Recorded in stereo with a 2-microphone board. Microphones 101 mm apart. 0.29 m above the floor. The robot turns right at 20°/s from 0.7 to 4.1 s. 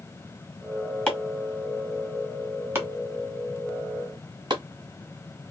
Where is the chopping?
10° left (ahead or behind), 1.7 m; by 4.6 s 45° right (ahead or behind), 1.7 m.